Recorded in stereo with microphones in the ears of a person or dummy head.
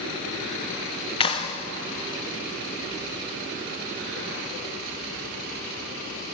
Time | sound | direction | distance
1.2 | a clap | 25° left (ahead or behind) | 1.0 m